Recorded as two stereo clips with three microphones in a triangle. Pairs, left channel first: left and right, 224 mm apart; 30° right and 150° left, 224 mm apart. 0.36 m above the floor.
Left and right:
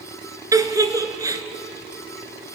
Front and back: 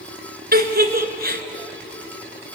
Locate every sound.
0.5 s a giggle: 165° right, 1.6 m